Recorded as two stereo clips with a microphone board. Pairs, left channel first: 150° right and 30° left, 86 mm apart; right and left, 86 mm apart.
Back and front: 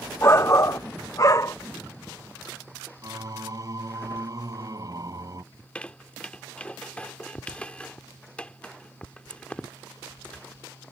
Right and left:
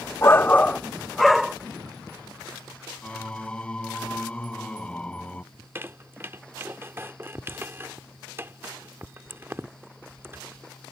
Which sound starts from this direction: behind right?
A shout, at 0.2 s.